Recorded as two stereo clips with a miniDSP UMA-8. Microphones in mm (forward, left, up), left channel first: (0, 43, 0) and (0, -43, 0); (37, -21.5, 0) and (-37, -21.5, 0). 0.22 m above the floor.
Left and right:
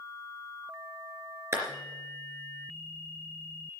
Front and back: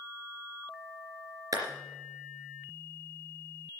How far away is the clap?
About 3 m.